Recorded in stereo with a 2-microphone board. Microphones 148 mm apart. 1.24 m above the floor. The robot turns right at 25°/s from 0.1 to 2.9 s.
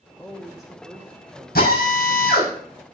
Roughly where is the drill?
Left.